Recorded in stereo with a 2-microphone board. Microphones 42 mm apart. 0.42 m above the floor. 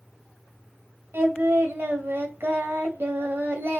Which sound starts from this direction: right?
Singing, at 1.1 s.